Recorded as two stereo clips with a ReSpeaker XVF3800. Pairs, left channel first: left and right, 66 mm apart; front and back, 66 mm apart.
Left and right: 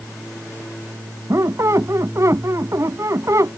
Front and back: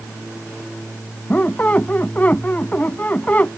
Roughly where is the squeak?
Ahead right.